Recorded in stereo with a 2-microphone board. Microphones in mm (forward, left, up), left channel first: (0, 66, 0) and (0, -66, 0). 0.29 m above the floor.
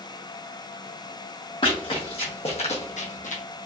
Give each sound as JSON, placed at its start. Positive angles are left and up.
{"t": 1.6, "sound": "running footsteps", "side_deg": 40, "distance_m": 1.4}